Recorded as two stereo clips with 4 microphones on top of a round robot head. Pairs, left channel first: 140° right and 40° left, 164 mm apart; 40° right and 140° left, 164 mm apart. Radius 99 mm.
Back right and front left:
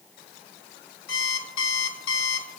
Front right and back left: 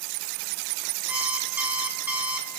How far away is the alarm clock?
About 1.9 m.